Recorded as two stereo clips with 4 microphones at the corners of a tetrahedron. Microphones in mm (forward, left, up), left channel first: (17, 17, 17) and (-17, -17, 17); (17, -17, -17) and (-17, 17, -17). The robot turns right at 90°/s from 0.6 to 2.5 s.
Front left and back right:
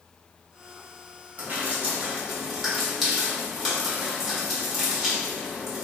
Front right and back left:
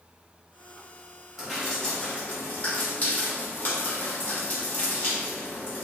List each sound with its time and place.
1.4 s dripping: 150° right, 1.4 m; by 5.8 s 50° right, 1.4 m